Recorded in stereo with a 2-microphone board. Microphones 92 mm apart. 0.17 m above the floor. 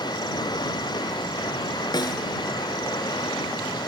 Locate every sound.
0.0 s running water: 50° left (ahead or behind)
1.9 s a snare drum: 50° left (ahead or behind)